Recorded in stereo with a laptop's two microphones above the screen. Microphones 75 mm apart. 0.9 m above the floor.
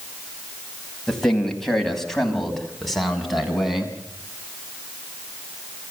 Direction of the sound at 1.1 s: 10° left (ahead or behind).